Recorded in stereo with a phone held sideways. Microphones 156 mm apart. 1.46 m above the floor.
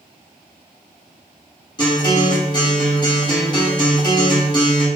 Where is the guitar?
30° left (ahead or behind), 1.0 m.